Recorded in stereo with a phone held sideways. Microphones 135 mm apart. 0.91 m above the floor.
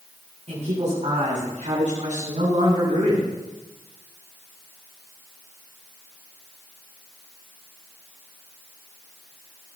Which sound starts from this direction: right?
A man speaking, at 0.5 s.